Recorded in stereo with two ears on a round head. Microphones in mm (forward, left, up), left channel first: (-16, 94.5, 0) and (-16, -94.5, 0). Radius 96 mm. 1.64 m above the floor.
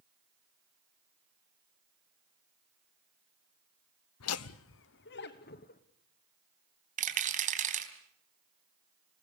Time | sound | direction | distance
4.2 | laughter | 90° left | 0.6 m
7.0 | a rattle | 40° right (ahead or behind) | 3.5 m